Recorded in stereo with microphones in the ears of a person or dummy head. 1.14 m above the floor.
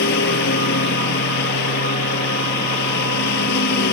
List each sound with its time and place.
0.0 s a lawn mower: 60° left (ahead or behind)